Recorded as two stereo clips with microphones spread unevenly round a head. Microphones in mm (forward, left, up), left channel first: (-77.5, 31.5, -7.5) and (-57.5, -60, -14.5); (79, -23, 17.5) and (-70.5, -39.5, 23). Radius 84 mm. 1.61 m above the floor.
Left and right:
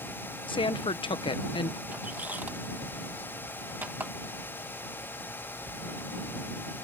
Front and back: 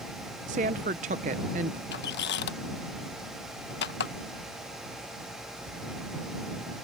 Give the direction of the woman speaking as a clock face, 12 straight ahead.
7 o'clock.